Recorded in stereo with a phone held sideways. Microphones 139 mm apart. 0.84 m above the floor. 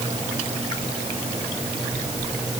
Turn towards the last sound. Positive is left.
No sound to turn to.